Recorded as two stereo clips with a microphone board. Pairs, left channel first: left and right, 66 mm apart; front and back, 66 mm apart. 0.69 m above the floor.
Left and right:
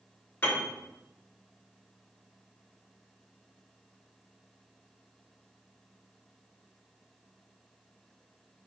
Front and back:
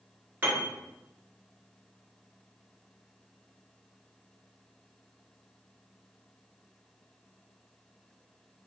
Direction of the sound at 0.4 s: 130° left.